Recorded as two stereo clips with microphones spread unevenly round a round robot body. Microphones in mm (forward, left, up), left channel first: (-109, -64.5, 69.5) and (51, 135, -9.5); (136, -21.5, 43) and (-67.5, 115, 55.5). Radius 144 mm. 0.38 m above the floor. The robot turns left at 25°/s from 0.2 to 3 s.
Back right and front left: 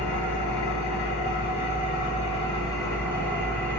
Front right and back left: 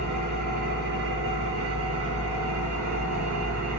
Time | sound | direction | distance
0.0 | an engine running | 145° right | 2.5 m